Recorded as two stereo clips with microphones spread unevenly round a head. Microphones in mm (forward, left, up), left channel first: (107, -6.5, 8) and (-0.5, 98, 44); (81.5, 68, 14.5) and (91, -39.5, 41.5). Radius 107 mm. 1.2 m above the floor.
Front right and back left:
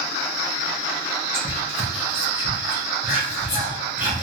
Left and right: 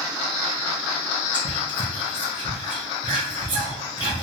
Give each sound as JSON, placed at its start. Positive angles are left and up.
{"t": 1.3, "sound": "whispering", "azimuth_deg": -135, "distance_m": 0.8}